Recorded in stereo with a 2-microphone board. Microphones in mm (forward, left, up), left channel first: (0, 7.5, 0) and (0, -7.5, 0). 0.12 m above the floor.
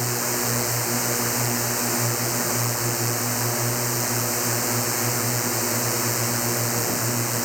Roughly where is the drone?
Centre.